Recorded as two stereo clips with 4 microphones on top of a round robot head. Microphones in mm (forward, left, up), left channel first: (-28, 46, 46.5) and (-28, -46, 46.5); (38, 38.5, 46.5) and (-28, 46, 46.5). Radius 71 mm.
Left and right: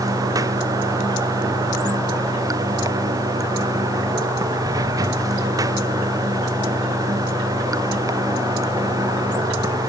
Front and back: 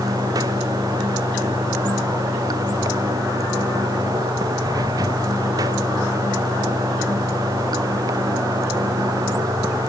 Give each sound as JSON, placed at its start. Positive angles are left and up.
{"t": 0.0, "sound": "running water", "azimuth_deg": -140}